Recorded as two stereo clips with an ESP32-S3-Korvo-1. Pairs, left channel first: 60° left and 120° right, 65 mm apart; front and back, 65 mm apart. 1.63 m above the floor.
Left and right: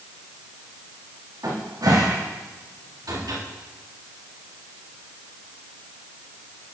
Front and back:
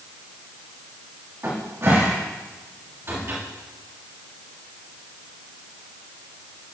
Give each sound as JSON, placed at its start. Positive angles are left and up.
{"t": 1.4, "sound": "a cupboard door", "azimuth_deg": -130, "distance_m": 3.0}